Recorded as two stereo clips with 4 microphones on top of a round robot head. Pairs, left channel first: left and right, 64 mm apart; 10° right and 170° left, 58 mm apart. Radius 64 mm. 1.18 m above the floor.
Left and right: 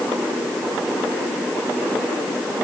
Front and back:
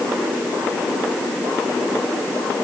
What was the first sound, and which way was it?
Only background noise.